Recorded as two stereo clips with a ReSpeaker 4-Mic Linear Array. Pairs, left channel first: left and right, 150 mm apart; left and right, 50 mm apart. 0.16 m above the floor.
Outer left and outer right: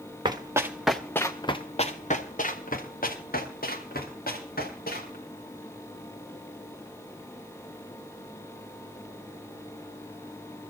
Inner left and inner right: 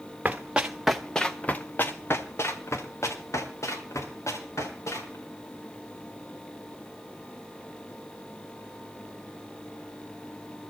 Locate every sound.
0.2 s running footsteps: 30° right (ahead or behind), 1.4 m; by 5.2 s 85° left, 4.5 m